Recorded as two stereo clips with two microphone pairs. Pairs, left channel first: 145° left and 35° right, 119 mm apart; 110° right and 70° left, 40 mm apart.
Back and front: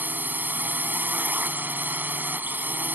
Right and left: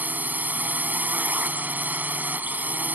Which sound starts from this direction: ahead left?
A drone, at 0.0 s.